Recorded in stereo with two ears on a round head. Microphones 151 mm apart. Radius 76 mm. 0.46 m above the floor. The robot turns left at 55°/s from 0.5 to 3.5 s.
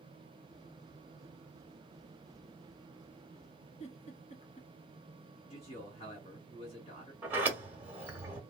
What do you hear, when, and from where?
3.8 s a giggle: 45° left (ahead or behind), 1.4 m
5.5 s a man speaking: 40° left (ahead or behind), 2.5 m
7.2 s a sliding door: 10° right (ahead or behind), 1.1 m